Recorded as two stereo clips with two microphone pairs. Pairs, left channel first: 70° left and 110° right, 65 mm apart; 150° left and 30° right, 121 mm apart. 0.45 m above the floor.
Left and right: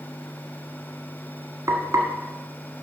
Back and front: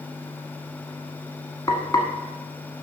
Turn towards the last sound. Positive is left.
turn(degrees=-145)